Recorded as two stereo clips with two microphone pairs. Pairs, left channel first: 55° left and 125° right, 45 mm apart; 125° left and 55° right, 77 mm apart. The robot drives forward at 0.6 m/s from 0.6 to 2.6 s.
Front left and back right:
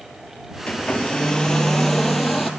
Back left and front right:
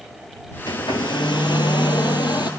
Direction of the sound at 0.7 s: 120° left.